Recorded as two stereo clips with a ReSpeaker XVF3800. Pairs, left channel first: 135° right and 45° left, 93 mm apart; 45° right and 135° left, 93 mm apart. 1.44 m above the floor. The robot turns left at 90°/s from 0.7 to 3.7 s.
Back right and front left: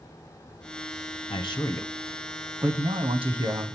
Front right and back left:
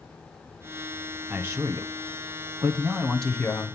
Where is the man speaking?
145° right, 0.9 m; by 3.8 s 5° right, 0.9 m.